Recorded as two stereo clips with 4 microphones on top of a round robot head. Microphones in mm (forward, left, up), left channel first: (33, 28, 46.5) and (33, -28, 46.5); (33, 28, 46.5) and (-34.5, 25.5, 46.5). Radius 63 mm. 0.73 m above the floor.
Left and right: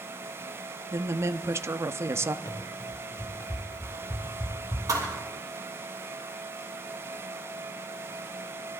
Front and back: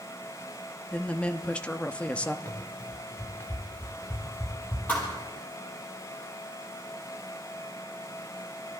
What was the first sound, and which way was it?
A woman speaking, 70° right.